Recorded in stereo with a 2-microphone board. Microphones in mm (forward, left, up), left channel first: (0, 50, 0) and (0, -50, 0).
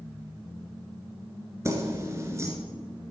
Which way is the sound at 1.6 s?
30° right (ahead or behind).